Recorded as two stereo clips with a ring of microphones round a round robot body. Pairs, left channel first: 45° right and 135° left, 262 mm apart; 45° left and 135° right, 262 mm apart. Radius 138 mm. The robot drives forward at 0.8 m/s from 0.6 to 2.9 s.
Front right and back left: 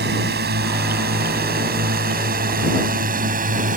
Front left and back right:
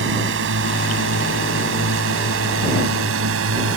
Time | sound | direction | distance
0.0 | a drone | 175° right | ?